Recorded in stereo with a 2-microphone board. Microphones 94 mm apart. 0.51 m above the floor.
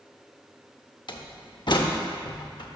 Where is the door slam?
55° left (ahead or behind), 0.6 m.